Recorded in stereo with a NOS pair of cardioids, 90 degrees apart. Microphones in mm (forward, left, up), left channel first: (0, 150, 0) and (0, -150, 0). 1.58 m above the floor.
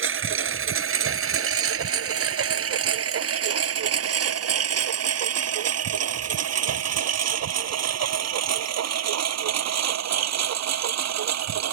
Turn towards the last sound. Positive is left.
turn(degrees=-60)